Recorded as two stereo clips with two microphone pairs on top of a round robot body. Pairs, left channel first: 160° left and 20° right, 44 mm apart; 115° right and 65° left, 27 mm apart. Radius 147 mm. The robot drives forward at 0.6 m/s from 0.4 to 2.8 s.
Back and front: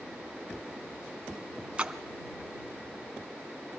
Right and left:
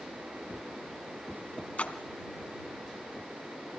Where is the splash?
85° right, 1.6 m; by 2.0 s 90° right, 1.6 m.